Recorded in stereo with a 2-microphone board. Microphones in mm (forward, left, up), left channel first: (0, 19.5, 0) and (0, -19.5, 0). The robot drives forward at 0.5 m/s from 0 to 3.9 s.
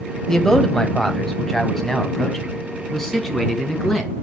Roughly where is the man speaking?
Centre.